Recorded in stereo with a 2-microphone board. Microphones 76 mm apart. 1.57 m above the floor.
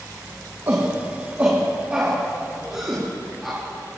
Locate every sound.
0.7 s a shout: 45° right (ahead or behind), 2.0 m; by 4.0 s centre (ahead or behind), 4.5 m